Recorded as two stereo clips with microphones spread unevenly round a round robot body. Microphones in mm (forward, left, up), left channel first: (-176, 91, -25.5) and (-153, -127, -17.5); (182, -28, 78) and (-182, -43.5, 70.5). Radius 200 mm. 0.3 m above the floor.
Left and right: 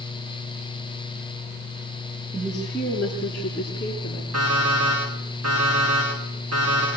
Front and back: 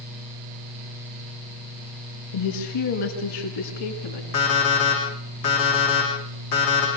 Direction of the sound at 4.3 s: 35° right.